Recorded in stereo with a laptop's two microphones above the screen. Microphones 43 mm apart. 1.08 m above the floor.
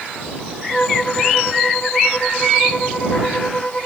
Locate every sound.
0.7 s a violin: 30° left (ahead or behind)